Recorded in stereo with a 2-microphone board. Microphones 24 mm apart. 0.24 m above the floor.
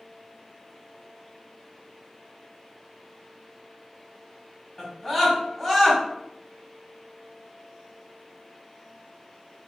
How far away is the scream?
About 1.6 m.